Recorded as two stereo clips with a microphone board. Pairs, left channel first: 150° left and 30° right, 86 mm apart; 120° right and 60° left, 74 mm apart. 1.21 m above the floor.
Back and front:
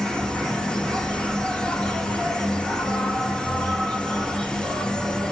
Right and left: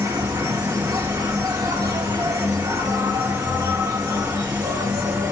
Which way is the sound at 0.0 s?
70° left.